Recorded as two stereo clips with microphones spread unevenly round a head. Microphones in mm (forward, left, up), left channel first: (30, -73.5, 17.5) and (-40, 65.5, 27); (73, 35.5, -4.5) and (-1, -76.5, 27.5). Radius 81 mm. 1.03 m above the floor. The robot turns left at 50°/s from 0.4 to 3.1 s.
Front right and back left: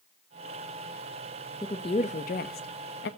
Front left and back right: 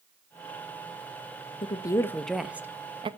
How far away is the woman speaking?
About 1.0 m.